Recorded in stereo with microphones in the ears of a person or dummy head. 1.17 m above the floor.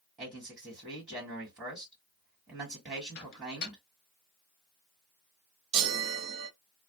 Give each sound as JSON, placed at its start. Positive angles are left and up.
{"t": 0.2, "sound": "a man speaking", "side_deg": -15, "distance_m": 1.6}
{"t": 3.1, "sound": "a microwave", "side_deg": 50, "distance_m": 1.3}
{"t": 5.7, "sound": "a chime", "side_deg": -70, "distance_m": 0.8}